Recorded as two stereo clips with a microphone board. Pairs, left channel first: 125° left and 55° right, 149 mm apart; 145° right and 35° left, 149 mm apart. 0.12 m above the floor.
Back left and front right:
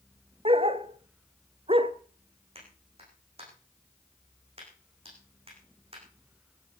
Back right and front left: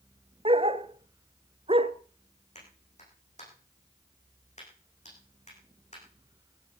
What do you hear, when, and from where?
0.5 s a dog barking: 10° right, 0.9 m
2.5 s a clap: 105° right, 10 m